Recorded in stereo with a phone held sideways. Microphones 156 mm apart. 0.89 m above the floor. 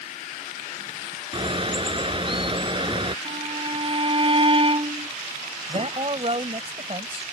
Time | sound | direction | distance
1.3 | a bird | 35° right (ahead or behind) | ?
3.2 | a violin | 35° right (ahead or behind) | ?
5.7 | a man speaking | 40° right (ahead or behind) | ?